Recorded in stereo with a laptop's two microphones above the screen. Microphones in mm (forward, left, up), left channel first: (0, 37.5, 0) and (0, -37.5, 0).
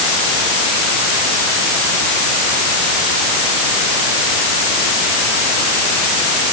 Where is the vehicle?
I don't hear a vehicle.